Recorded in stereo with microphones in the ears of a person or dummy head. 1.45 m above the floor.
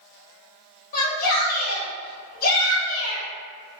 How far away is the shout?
About 1.3 m.